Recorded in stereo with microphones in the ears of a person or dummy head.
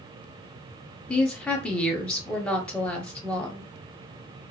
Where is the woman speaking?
Centre (ahead or behind), 0.8 m.